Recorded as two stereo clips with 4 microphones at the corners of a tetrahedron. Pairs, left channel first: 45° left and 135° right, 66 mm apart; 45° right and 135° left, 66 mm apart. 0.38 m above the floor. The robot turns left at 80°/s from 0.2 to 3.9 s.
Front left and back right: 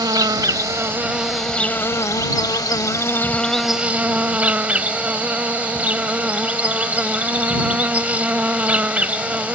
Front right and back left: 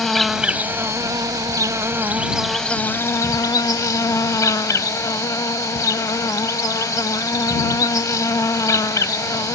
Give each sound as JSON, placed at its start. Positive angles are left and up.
{"t": 0.0, "sound": "an insect", "azimuth_deg": -130}